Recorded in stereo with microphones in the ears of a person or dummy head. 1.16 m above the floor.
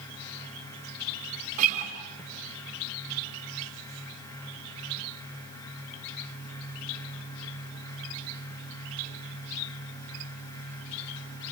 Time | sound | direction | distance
1.6 | a guitar | 40° right (ahead or behind) | 3.5 m